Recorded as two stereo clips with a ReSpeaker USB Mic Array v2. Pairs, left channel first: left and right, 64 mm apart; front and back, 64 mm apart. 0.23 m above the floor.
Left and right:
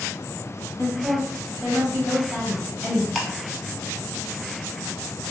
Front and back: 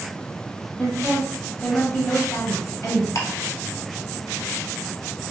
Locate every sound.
0.8 s a woman speaking: 85° right, 1.0 m; by 3.0 s 10° left, 1.4 m
3.1 s ticking: straight ahead, 0.7 m